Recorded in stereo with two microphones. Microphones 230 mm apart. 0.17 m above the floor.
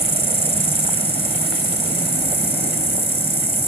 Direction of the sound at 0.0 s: 25° right (ahead or behind).